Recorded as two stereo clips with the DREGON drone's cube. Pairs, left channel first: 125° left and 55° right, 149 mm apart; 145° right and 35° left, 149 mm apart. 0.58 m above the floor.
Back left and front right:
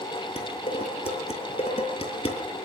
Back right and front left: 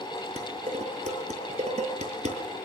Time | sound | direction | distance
0.4 | dishes clattering | 80° left | 6.5 m